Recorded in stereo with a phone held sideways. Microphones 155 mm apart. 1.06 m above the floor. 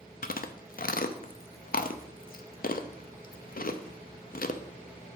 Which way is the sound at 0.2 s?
70° left (ahead or behind).